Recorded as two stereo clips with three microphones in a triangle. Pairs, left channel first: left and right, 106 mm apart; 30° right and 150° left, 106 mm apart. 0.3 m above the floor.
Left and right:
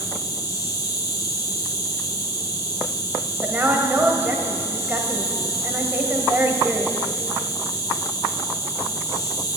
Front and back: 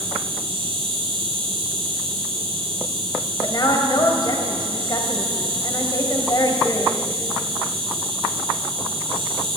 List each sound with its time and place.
0.0 s an insect: 135° left, 1.9 m
3.4 s a woman speaking: 30° right, 1.8 m